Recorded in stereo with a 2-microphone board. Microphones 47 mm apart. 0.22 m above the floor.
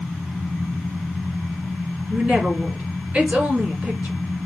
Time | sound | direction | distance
2.1 | a woman speaking | 30° right (ahead or behind) | 1.9 m